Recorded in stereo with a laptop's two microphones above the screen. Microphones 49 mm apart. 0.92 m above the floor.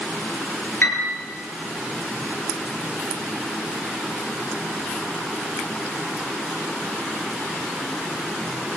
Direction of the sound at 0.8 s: 50° left (ahead or behind).